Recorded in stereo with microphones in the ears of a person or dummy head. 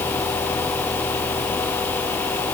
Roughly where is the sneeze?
I don't hear a sneeze.